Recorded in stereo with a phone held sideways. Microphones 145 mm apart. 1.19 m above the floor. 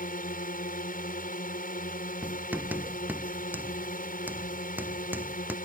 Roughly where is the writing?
Centre.